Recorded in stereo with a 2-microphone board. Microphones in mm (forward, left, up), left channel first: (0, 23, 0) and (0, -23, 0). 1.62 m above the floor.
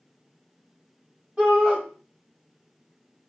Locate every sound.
1.4 s a shout: 20° right (ahead or behind), 0.9 m